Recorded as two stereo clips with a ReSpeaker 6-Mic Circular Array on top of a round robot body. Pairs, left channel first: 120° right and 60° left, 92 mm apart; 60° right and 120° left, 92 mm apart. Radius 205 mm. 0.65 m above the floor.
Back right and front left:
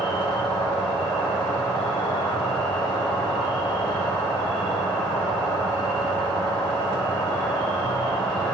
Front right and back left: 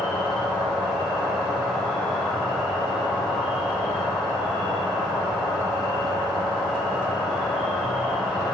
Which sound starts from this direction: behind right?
An insect, at 0.0 s.